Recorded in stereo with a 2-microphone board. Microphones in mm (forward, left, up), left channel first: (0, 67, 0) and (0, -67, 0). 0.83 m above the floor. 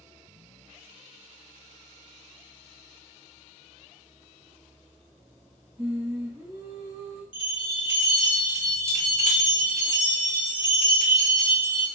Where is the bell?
40° left (ahead or behind), 0.9 m.